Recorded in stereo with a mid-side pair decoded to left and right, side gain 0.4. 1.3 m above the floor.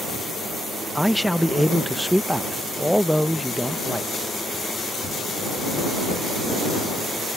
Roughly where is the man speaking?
Ahead.